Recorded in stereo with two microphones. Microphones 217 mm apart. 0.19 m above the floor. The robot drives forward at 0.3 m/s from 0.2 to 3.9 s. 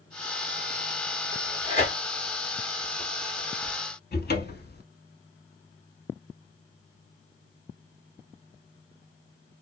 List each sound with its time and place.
1.3 s tearing paper: 35° left (ahead or behind), 1.5 m; by 3.8 s 25° left (ahead or behind), 2 m
4.1 s a cupboard door: 50° left (ahead or behind), 0.6 m